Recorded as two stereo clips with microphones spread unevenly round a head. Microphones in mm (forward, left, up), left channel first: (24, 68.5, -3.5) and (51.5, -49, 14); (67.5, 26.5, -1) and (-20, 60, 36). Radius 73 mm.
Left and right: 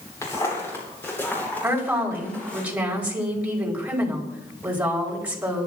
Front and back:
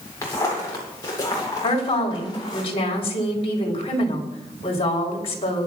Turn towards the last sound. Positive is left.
turn(degrees=0)